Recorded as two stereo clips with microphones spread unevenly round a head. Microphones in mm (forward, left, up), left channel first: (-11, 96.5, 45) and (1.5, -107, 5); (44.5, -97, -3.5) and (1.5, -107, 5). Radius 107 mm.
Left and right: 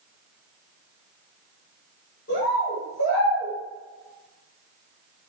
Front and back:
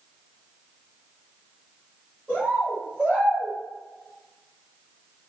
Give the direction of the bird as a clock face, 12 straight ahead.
8 o'clock.